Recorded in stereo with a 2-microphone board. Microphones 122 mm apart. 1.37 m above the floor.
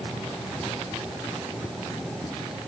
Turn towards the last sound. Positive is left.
No sound to turn to.